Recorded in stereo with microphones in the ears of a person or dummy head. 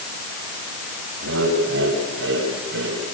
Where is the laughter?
75° right (ahead or behind), 8 m; by 3.0 s 70° right (ahead or behind), 8 m.